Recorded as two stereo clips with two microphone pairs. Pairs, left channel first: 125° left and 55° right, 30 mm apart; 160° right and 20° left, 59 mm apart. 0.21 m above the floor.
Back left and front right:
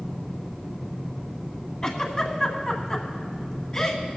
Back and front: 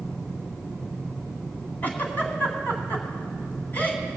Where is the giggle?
Straight behind, 1.7 m.